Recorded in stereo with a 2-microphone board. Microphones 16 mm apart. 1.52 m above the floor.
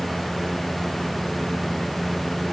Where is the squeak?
I don't hear a squeak.